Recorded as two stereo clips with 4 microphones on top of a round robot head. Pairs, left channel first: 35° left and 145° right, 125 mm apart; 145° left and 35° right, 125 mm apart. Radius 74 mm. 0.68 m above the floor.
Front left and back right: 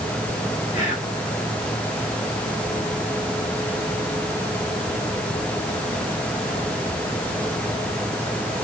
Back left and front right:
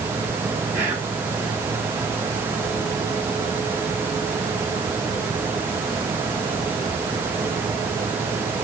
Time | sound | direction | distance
0.7 | whispering | 30° left | 2 m